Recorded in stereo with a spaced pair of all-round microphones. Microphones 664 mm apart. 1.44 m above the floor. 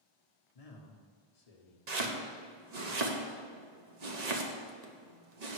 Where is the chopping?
65° right (ahead or behind), 1.0 m.